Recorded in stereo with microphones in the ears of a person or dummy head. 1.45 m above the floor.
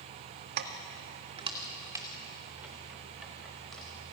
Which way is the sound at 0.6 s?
55° right (ahead or behind).